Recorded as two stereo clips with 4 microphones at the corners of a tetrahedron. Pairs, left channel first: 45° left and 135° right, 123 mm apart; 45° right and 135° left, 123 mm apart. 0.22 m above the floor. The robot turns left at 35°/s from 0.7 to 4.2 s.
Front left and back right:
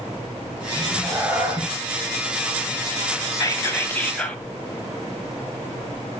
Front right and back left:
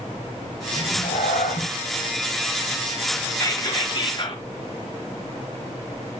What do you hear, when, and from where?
0.8 s a cat meowing: 40° right, 1.9 m; by 1.7 s 70° right, 1.9 m
3.3 s whispering: straight ahead, 1.5 m; by 4.4 s 30° right, 1.5 m